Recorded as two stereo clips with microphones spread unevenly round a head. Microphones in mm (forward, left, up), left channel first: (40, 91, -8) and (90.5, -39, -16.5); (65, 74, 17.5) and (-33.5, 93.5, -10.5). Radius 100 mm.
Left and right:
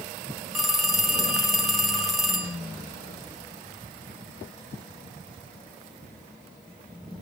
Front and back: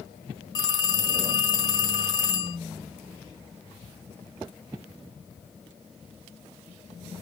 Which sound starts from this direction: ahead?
A phone ringing, at 0.6 s.